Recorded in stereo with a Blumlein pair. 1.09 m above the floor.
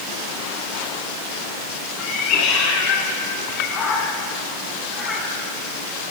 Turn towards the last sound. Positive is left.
turn(degrees=15)